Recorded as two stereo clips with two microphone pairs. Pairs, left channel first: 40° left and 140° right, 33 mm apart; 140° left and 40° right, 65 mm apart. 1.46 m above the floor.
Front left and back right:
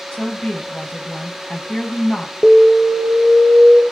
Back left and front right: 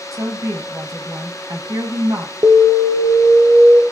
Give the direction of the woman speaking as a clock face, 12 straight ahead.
1 o'clock.